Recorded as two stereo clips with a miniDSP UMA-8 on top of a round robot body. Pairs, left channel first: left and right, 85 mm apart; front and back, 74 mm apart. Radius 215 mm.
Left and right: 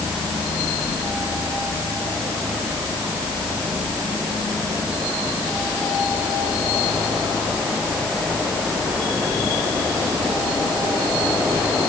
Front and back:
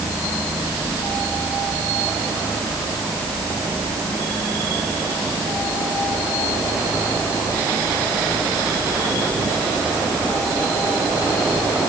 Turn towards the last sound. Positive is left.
No sound to turn to.